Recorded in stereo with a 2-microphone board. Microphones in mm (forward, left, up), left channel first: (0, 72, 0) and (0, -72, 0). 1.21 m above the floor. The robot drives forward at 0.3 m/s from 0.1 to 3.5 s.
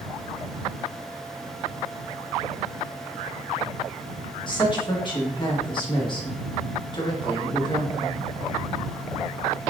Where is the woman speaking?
35° left (ahead or behind), 1.4 m.